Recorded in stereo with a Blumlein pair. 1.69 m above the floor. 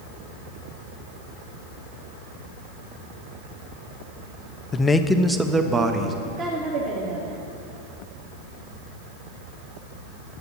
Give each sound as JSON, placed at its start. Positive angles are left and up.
{"t": 4.7, "sound": "a man speaking", "azimuth_deg": 25, "distance_m": 0.7}
{"t": 6.2, "sound": "a woman speaking", "azimuth_deg": -30, "distance_m": 2.5}